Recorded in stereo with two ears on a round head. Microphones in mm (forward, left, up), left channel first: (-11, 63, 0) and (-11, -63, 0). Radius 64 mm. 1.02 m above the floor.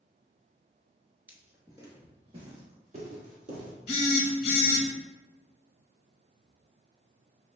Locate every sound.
1.3 s footsteps: 15° right (ahead or behind), 1.0 m; by 3.8 s 60° right (ahead or behind), 2 m
3.9 s a phone buzzing: 45° left (ahead or behind), 0.9 m